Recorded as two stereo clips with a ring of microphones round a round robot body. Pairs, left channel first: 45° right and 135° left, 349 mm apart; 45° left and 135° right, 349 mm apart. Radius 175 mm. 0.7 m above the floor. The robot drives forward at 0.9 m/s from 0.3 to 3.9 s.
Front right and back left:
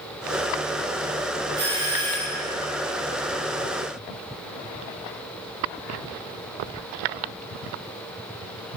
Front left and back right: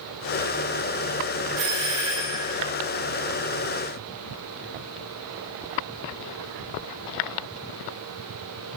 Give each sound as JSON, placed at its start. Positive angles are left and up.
{"t": 1.6, "sound": "a doorbell", "azimuth_deg": -155, "distance_m": 1.5}